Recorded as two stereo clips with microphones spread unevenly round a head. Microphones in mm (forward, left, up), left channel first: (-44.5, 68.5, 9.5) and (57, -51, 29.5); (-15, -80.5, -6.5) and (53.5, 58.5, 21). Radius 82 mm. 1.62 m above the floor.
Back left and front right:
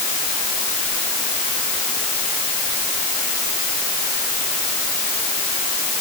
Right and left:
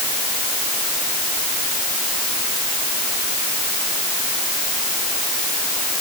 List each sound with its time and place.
Only background noise.